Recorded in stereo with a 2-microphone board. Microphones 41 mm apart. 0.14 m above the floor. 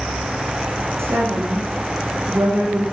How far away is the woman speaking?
About 7.5 m.